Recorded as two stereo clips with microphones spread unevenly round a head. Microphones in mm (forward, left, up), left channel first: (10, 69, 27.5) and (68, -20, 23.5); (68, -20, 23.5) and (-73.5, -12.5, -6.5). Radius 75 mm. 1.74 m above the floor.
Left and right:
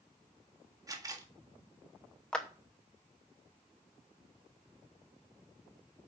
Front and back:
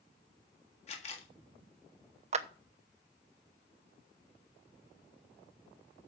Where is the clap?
160° right, 0.7 m.